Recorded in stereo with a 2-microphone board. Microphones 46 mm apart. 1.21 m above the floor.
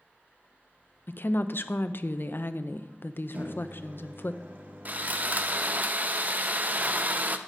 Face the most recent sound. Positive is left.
turn(degrees=-35)  # may be behind; listen again after turning